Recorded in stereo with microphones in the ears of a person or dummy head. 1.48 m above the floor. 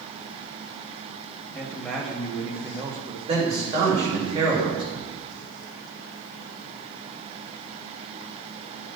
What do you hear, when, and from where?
1.5 s a man speaking: 5° left (ahead or behind), 1.5 m; by 3.2 s 30° right (ahead or behind), 0.9 m
3.3 s a man speaking: 30° right (ahead or behind), 2.5 m